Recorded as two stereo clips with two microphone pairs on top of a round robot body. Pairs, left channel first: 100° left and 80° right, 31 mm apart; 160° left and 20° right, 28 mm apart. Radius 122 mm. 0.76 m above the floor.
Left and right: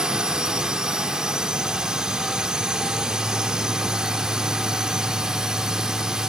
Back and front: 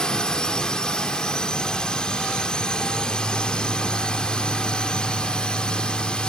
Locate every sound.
0.0 s a drone: 135° right; by 6.3 s 140° right